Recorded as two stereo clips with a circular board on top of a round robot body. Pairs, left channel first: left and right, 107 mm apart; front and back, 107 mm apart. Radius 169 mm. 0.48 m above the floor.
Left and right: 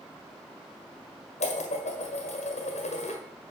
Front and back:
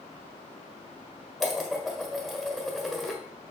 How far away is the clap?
No clap in this recording.